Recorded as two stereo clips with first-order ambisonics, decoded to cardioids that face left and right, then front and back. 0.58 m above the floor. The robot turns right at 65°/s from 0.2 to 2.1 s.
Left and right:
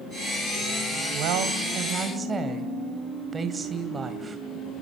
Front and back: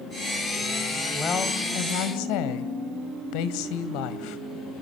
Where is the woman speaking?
80° right, 2.5 m; by 4.4 s 15° right, 2.5 m.